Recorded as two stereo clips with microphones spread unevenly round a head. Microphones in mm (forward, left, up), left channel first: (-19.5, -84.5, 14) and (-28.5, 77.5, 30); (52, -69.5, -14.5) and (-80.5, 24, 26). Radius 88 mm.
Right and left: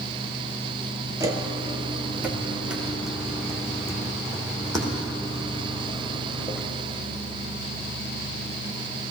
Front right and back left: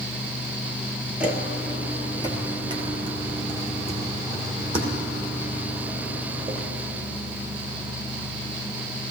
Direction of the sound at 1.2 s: 115° left.